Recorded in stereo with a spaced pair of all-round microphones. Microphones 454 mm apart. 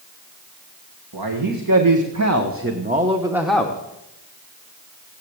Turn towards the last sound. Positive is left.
turn(degrees=10)  # may be behind; listen again after turning